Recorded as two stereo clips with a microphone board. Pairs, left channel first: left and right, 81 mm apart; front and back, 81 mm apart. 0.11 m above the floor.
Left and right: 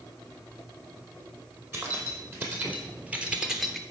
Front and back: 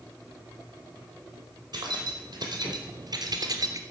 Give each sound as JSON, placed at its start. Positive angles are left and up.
{"t": 1.7, "sound": "keys jangling", "azimuth_deg": -150, "distance_m": 3.0}